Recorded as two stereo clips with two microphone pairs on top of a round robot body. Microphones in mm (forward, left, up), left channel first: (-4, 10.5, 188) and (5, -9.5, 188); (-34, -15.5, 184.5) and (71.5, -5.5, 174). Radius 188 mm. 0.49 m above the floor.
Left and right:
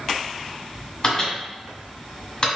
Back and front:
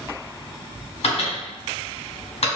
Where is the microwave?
170° left, 2.0 m.